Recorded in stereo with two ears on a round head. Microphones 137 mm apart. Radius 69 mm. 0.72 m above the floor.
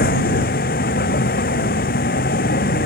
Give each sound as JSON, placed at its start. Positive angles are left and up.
{"t": 0.0, "sound": "a vehicle", "side_deg": 60}